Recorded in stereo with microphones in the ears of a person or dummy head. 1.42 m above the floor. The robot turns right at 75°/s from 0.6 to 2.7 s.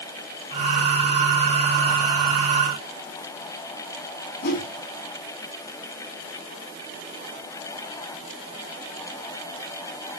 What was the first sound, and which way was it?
A whoosh, 60° left (ahead or behind).